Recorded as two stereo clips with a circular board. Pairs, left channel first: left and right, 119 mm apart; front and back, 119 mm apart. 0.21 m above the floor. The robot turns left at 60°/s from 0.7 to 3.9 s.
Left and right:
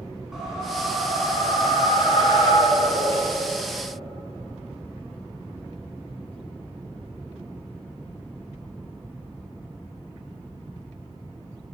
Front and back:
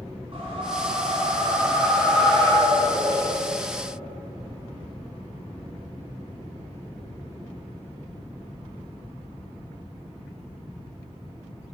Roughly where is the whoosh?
Behind.